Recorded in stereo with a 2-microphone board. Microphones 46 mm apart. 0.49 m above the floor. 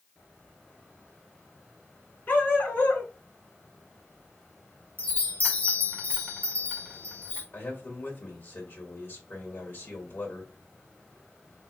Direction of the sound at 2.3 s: 40° left (ahead or behind).